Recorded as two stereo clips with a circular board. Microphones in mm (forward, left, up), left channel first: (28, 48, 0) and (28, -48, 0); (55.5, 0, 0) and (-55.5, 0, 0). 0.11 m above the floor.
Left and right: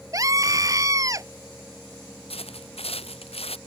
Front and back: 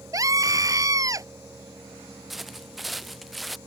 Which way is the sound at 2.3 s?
90° left.